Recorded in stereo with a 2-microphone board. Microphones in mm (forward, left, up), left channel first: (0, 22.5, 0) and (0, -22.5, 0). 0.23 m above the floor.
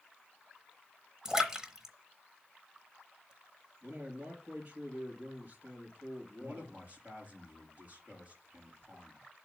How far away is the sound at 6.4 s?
About 4.5 m.